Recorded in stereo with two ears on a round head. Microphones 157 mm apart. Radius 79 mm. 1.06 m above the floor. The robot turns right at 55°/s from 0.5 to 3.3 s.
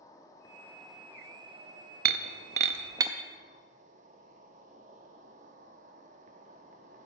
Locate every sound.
0.0 s an insect: 160° left, 1.0 m; by 7.0 s 50° right, 1.0 m
2.0 s breaking glass: 60° right (ahead or behind), 0.6 m; by 3.1 s 15° right (ahead or behind), 0.6 m